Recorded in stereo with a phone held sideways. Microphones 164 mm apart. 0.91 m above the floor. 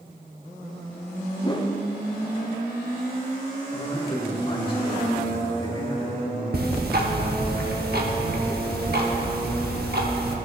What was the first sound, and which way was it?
A whoosh, 25° left (ahead or behind).